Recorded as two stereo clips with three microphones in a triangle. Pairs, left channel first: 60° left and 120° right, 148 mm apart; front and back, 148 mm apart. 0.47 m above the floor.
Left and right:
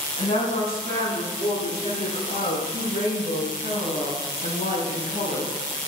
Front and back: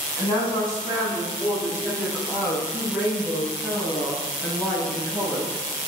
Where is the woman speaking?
60° left, 3.5 m; by 5.5 s 80° left, 6.5 m.